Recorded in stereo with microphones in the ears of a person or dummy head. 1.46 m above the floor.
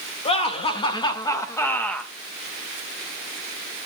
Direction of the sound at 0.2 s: 35° left (ahead or behind).